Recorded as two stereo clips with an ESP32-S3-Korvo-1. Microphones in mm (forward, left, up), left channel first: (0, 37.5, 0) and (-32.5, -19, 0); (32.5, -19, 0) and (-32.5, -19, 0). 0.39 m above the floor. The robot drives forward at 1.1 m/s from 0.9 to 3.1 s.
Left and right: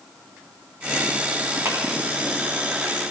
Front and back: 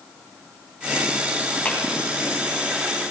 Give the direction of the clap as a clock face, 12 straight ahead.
2 o'clock.